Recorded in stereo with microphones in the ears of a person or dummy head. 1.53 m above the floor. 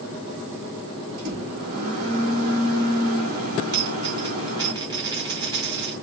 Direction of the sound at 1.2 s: 50° right (ahead or behind).